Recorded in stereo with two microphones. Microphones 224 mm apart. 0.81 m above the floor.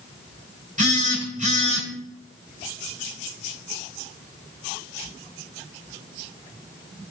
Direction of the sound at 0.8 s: 35° right (ahead or behind).